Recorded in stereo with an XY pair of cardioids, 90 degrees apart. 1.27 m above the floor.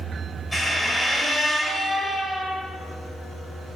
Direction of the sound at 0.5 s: 5° left.